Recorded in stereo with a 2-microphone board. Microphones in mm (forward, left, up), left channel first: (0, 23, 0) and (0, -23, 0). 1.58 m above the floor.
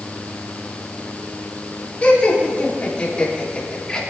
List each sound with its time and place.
2.0 s laughter: 30° left (ahead or behind), 5 m; by 4.0 s 15° left (ahead or behind), 4.5 m